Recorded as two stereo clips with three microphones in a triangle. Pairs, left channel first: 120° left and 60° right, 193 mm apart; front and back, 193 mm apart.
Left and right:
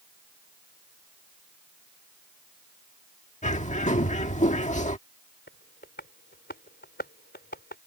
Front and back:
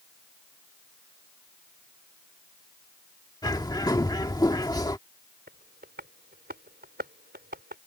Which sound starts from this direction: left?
A bird, at 3.4 s.